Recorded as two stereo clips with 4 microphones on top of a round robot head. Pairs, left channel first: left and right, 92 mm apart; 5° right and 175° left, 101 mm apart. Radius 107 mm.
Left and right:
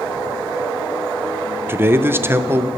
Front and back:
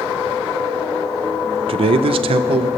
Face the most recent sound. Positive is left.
turn(degrees=-155)